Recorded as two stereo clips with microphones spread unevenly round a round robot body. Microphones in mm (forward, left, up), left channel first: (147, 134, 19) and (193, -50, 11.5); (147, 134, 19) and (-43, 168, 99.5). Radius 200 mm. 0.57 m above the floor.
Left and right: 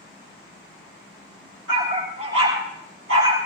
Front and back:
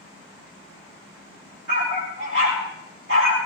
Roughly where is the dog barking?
Behind right.